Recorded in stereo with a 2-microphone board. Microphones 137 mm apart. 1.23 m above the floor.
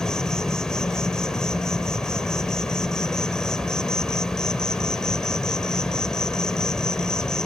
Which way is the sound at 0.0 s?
5° left (ahead or behind).